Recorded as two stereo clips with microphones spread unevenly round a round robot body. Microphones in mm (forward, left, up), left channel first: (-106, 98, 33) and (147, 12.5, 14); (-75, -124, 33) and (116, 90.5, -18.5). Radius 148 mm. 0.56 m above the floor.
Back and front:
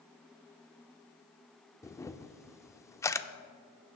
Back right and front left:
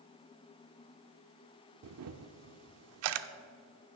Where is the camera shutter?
80° left, 0.5 m.